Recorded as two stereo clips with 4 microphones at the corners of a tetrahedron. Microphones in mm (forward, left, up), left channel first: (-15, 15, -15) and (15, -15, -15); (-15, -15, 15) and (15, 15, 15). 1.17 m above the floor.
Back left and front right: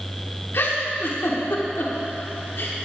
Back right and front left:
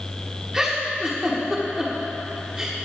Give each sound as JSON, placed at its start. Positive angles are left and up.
{"t": 0.5, "sound": "a giggle", "azimuth_deg": 115, "distance_m": 2.0}